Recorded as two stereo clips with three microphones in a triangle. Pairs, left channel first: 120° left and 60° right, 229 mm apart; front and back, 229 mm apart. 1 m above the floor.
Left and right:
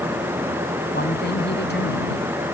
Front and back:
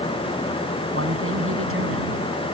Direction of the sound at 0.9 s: 160° left.